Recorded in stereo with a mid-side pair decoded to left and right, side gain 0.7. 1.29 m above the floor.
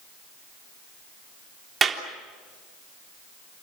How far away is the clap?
About 3.5 m.